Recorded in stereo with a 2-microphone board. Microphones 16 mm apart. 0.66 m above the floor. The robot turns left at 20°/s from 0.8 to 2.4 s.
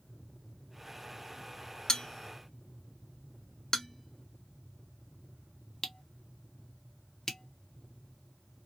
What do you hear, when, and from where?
1.9 s a bell: 40° left (ahead or behind), 0.7 m; by 8.7 s 30° left (ahead or behind), 0.7 m